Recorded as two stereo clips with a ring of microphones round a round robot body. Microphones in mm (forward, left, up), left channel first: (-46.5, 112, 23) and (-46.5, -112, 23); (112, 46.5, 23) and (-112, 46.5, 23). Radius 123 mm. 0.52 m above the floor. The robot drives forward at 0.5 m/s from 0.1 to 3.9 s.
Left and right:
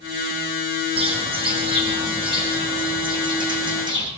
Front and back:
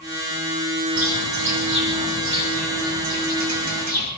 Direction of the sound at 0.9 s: 155° right.